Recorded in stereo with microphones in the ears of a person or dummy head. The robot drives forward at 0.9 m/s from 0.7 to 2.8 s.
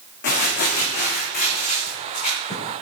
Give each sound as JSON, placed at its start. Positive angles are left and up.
{"t": 0.2, "sound": "crumpling", "side_deg": 55, "distance_m": 1.9}